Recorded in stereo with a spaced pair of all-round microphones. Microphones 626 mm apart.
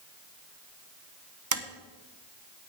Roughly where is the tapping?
Right.